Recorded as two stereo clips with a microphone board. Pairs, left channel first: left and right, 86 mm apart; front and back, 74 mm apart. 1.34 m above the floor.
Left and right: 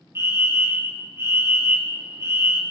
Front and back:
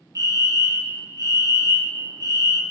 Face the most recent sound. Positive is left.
turn(degrees=-145)